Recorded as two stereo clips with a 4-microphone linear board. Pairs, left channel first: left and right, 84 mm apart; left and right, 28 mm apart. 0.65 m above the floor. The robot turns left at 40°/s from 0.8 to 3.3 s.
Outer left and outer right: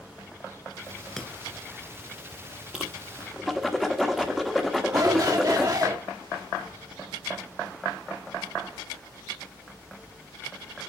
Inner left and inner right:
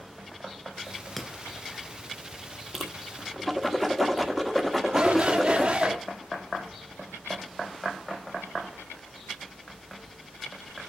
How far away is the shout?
About 1.7 m.